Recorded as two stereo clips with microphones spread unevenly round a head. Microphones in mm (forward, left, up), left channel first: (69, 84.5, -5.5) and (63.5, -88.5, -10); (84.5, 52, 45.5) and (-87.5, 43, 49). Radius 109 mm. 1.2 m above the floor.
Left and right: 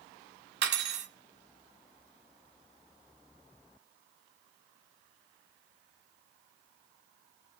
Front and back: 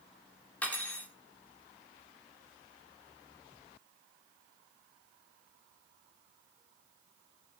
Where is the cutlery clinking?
80° right, 1.5 m.